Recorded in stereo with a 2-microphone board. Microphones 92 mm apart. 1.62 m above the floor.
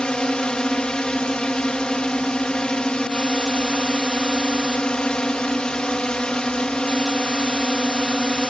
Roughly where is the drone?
Centre.